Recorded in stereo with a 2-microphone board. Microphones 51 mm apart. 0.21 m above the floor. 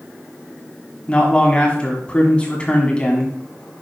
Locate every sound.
1.1 s a man speaking: 20° left (ahead or behind), 2 m